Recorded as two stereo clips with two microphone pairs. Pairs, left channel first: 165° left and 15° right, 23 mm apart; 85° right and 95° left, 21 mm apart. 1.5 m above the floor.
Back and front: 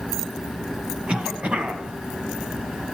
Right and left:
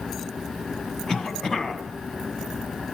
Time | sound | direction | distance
1.1 | a cough | 35° right | 1.9 m